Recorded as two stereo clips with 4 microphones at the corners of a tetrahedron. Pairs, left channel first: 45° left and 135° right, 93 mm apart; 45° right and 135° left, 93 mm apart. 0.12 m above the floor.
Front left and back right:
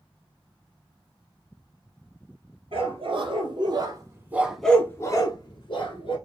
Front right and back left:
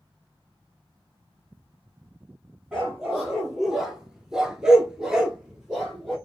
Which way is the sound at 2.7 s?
140° right.